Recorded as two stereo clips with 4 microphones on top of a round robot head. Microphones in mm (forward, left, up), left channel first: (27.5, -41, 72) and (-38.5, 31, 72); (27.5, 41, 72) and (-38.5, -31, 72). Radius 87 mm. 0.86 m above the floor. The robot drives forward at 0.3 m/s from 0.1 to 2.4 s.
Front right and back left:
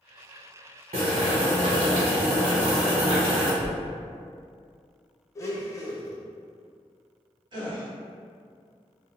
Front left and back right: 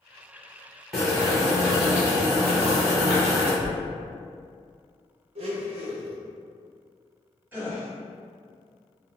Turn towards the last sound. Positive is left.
turn(degrees=160)